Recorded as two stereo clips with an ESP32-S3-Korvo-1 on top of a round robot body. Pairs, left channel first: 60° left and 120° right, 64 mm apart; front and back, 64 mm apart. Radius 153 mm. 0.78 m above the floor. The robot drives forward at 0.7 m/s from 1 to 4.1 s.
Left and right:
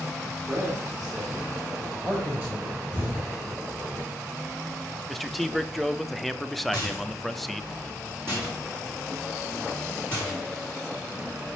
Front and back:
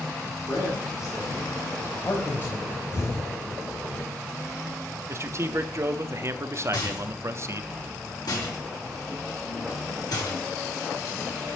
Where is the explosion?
45° right, 2.5 m; by 3.3 s 50° right, 2.5 m.